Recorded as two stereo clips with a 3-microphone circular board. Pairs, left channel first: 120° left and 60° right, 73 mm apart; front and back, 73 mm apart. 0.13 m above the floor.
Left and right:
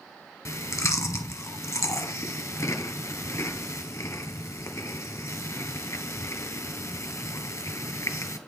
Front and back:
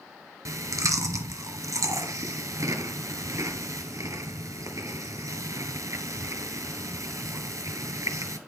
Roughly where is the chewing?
Behind left.